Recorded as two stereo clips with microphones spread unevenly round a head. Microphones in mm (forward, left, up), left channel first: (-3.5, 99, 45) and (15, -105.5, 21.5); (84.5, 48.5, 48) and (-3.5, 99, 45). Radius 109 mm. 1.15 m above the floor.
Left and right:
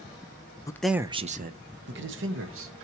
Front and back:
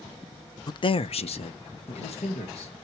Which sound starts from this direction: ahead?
A man speaking, at 0.7 s.